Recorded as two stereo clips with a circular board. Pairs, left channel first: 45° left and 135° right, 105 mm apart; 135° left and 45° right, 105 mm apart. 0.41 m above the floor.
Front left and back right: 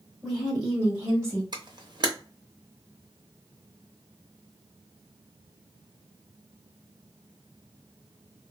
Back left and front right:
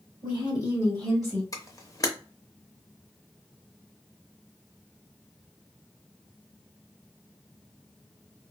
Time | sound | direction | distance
0.2 | a woman speaking | 135° left | 1.7 m
1.5 | a camera shutter | 175° right | 0.7 m